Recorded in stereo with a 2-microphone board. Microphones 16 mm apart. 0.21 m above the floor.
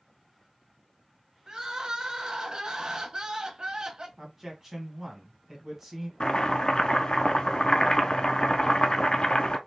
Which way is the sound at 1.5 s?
40° right (ahead or behind).